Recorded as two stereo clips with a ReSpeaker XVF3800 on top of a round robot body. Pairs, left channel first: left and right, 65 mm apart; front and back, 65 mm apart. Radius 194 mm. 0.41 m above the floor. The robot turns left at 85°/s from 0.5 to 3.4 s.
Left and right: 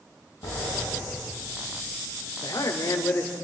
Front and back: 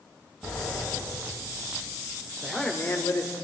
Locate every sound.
0.4 s a sliding door: 95° left, 6.5 m; by 1.9 s 25° right, 6.5 m
2.4 s a man speaking: 95° left, 2.5 m; by 3.3 s 20° left, 2.5 m